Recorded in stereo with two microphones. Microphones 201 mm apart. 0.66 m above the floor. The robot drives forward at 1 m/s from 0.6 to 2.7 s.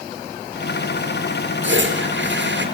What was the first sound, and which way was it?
A toilet flushing, 70° right (ahead or behind).